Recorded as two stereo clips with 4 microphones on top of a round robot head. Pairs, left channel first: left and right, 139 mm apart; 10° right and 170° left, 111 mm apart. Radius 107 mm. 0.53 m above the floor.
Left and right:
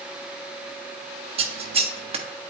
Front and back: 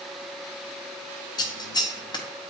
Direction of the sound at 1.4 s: 55° right.